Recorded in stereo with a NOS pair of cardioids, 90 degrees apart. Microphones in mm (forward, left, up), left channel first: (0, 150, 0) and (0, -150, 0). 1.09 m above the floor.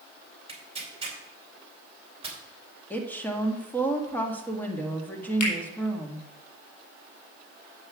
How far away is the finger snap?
About 4.5 m.